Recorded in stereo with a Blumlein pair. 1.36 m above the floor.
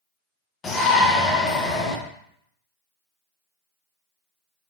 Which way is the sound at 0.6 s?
20° left.